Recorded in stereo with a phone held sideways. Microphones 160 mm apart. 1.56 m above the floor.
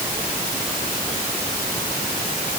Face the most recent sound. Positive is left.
No sound to turn to.